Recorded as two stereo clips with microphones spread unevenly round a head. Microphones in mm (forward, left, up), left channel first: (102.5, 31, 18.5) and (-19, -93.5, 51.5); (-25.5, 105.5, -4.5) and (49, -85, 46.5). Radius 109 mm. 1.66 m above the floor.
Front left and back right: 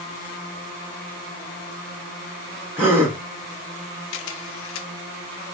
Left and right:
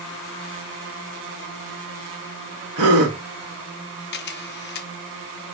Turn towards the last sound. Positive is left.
turn(degrees=65)